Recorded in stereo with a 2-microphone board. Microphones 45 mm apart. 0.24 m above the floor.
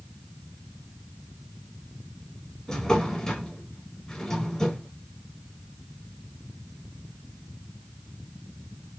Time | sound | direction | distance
2.7 | a drawer | 10° left (ahead or behind) | 0.6 m